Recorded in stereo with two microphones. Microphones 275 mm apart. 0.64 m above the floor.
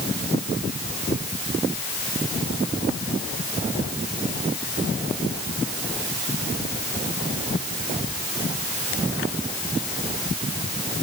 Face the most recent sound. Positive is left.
No sound to turn to.